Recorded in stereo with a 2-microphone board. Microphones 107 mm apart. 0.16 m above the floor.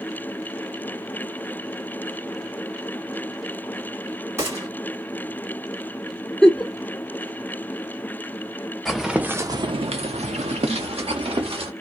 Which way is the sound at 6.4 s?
5° left (ahead or behind).